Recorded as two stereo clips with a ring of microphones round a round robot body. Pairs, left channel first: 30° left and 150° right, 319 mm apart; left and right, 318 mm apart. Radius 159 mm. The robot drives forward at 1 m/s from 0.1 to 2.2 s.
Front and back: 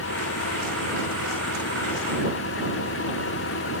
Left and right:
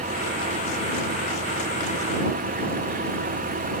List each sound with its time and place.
0.0 s an engine running: 20° right; by 3.8 s 25° right